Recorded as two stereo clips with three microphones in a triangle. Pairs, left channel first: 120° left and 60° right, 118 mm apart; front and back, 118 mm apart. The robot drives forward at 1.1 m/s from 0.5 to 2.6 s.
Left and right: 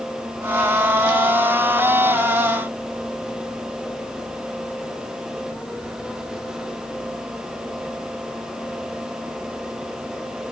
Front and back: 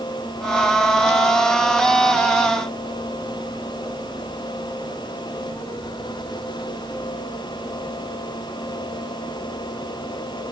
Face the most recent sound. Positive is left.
No sound to turn to.